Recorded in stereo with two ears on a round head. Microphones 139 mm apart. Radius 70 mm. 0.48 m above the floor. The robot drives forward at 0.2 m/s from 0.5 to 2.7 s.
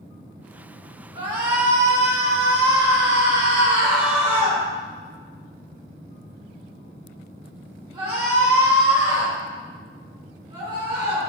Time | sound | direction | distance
1.1 | a shout | 35° right (ahead or behind) | 1.9 m